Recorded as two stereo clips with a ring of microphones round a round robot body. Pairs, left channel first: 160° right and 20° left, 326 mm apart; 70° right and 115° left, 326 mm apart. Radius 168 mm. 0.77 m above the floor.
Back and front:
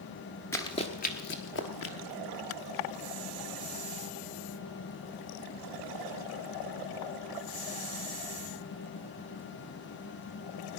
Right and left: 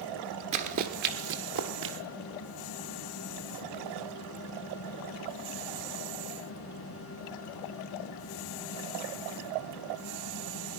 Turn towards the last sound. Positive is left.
turn(degrees=160)